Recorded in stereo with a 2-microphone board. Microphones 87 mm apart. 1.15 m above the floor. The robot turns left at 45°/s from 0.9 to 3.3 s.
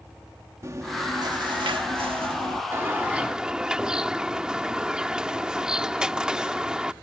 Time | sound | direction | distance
0.6 | chewing | 35° right | ?
2.7 | a bird | 30° right (ahead or behind) | ?